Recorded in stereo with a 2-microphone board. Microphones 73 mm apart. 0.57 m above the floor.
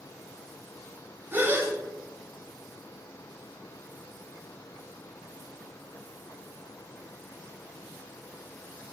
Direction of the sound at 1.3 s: 30° right (ahead or behind).